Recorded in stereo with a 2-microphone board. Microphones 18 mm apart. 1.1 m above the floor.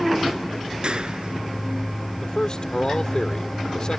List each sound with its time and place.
0.8 s a clap: 55° right (ahead or behind)
2.2 s a man speaking: 40° left (ahead or behind)